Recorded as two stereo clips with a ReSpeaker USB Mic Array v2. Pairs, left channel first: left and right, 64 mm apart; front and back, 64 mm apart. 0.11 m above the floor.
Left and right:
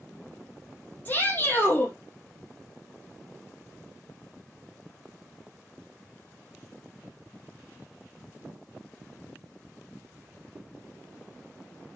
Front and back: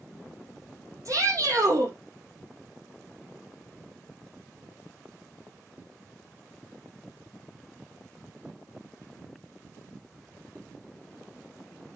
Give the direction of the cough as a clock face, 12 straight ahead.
I don't hear a cough.